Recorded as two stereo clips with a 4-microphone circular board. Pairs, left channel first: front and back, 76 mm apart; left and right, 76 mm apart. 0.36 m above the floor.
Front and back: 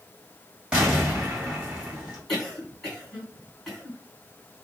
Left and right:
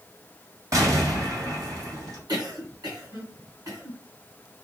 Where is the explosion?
105° right, 2 m.